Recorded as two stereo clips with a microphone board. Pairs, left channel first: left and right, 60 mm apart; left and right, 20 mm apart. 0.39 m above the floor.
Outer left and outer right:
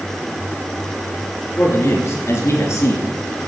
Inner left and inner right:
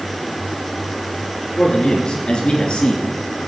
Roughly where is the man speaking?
Left.